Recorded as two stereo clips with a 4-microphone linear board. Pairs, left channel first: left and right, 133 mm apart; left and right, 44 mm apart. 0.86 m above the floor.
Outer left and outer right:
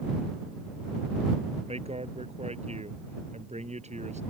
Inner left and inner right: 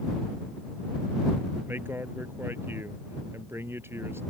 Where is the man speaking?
50° right (ahead or behind); by 4.2 s 60° right (ahead or behind).